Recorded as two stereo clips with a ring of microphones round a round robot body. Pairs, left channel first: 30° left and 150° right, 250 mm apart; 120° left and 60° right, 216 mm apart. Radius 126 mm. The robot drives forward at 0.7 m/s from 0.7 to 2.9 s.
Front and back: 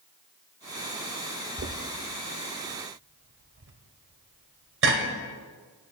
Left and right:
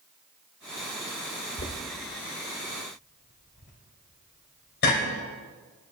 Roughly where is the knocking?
Behind.